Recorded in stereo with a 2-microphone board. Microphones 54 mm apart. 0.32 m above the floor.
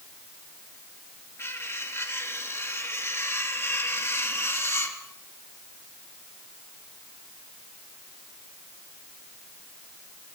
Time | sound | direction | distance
1.4 | cutlery clinking | 55° left (ahead or behind) | 3.5 m